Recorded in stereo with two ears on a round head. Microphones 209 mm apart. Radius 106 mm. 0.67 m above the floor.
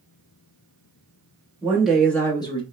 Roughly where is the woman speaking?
Centre.